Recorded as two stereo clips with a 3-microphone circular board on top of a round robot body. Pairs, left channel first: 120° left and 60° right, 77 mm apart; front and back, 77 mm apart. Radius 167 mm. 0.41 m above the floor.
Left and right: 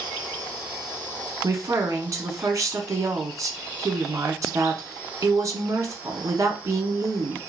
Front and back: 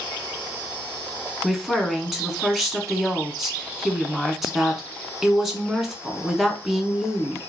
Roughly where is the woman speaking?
Right.